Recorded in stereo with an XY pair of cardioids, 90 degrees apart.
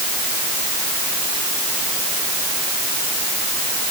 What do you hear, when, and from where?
Only background noise.